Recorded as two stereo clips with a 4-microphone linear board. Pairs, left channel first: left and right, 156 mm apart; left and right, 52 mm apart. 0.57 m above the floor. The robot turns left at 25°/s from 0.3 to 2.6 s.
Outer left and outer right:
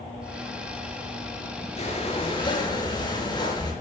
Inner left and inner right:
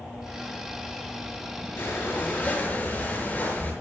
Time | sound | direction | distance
1.8 | breathing | 50° left (ahead or behind) | 5.5 m